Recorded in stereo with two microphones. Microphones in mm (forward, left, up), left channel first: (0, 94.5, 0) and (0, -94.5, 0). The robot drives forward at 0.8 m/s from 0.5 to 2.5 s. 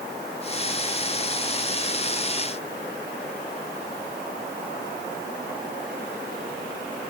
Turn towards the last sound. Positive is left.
No sound to turn to.